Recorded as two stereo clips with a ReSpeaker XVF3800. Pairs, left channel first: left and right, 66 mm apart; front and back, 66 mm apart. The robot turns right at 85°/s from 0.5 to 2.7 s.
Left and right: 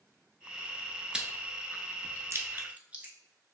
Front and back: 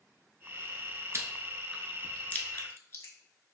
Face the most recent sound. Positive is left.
turn(degrees=-30)